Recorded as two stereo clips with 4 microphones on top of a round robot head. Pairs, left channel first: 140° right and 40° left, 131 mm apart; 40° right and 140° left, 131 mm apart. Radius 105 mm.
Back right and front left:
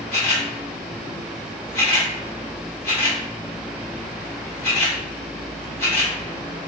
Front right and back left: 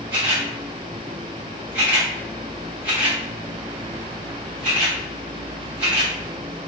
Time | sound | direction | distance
0.1 | a camera shutter | 170° right | 1.3 m